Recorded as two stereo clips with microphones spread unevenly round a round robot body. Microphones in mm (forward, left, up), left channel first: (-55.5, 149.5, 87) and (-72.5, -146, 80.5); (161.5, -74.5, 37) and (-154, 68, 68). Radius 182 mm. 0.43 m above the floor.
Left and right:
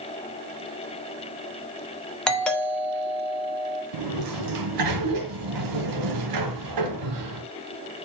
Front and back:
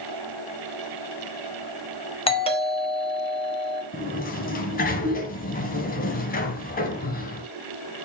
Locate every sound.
2.3 s a doorbell: straight ahead, 1.9 m
3.9 s a sliding door: 90° right, 1.3 m